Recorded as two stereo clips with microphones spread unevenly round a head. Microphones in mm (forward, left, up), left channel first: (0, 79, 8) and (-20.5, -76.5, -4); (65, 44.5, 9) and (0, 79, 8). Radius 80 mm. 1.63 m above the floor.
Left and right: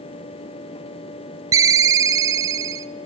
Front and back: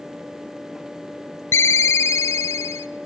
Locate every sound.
1.5 s a ringtone: 35° right, 0.6 m